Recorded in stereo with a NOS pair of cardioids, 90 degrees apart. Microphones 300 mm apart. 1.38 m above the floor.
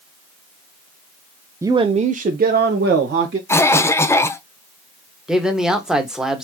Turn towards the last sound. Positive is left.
turn(degrees=0)